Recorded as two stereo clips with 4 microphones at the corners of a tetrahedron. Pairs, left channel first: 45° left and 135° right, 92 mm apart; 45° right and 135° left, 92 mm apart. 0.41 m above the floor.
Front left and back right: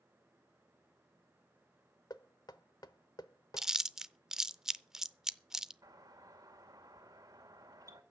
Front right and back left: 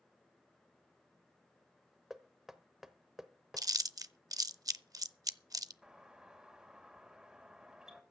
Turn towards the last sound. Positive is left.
turn(degrees=-145)